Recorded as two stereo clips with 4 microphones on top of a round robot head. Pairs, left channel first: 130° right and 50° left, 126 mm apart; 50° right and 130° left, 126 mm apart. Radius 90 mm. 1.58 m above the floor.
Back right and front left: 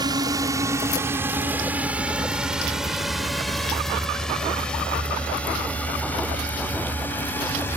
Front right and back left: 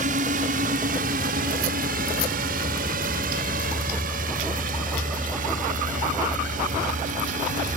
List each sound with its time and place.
0.0 s a drone: 110° left; by 7.8 s 155° left